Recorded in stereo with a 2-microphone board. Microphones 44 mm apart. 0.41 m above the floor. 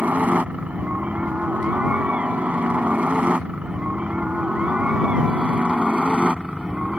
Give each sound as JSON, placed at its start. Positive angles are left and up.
{"t": 0.0, "sound": "a helicopter", "side_deg": -35}